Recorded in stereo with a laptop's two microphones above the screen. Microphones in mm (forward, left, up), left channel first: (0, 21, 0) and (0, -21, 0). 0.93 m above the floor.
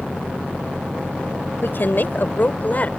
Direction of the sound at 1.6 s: 55° left (ahead or behind).